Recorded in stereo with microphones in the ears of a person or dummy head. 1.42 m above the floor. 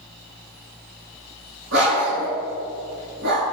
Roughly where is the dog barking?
Right.